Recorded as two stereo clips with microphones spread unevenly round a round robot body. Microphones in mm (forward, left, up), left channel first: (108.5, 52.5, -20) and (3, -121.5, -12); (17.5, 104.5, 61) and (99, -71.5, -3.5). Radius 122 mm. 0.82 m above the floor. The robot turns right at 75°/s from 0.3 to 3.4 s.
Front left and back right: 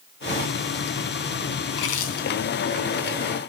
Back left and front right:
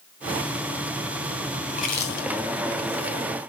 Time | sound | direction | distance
1.7 | chewing | 55° left | 3 m